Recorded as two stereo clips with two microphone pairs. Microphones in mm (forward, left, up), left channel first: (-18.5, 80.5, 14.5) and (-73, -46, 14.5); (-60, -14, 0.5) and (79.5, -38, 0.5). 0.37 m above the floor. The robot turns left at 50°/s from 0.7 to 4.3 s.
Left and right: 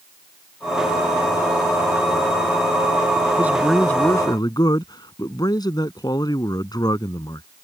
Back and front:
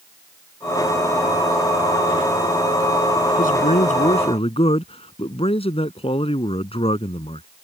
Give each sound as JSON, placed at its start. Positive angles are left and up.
{"t": 3.4, "sound": "a man speaking", "azimuth_deg": 170}